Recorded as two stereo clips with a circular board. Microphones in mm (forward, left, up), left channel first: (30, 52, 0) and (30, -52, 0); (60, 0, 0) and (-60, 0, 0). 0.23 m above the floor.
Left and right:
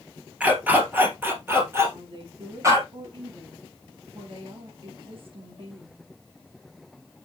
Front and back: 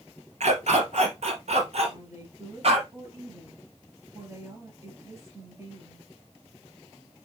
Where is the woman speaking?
115° right, 4.5 m.